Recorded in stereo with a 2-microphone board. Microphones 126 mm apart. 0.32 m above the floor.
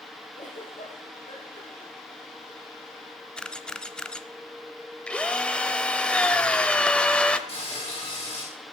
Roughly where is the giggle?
Left.